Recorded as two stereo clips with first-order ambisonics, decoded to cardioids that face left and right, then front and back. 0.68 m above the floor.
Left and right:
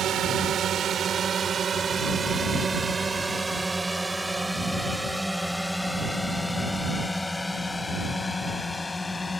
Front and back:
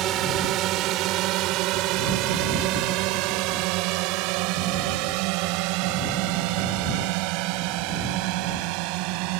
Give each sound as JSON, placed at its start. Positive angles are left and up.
{"t": 0.0, "sound": "a drone", "azimuth_deg": -140}